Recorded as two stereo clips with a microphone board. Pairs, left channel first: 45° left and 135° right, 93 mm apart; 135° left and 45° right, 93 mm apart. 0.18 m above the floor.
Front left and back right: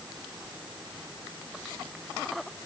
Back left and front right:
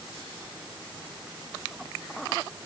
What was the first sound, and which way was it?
Only background noise.